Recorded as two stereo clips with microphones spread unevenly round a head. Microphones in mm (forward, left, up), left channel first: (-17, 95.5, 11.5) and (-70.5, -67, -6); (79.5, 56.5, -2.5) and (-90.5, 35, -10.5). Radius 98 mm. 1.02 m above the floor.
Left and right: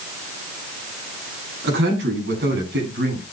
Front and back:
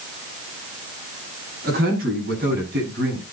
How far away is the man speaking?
About 8.5 m.